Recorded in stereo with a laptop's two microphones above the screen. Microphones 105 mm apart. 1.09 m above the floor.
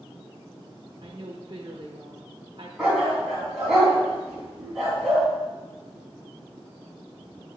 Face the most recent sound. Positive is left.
turn(degrees=-5)  # may be behind; listen again after turning